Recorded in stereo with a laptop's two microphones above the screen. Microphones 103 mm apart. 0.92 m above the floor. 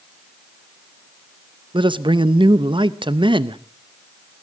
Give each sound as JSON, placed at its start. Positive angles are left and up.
{"t": 1.7, "sound": "a man speaking", "side_deg": -55, "distance_m": 0.7}